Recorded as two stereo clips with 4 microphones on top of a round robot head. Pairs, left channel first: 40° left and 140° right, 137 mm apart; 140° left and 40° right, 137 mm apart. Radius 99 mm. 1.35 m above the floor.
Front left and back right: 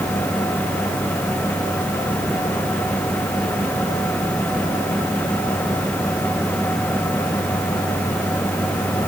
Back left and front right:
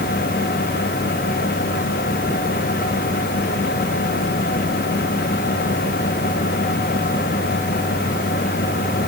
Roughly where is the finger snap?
I don't hear a finger snap.